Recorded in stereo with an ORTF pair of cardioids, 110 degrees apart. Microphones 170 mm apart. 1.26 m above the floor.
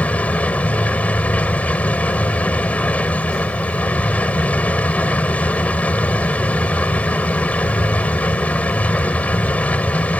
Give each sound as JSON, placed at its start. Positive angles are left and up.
{"t": 0.0, "sound": "a machine running", "azimuth_deg": 10}